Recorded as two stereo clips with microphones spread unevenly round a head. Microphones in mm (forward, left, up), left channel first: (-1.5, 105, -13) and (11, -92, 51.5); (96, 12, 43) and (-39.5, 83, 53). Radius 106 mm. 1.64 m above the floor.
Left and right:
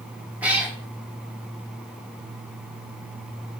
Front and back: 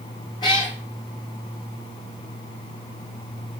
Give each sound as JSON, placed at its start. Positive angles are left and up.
{"t": 0.4, "sound": "a cat meowing", "azimuth_deg": -75, "distance_m": 0.9}